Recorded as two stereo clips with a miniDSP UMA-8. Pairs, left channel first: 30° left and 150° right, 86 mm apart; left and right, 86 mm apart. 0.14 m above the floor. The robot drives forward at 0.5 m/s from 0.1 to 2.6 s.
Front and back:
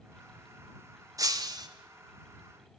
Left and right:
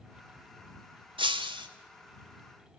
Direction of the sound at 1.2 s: 105° right.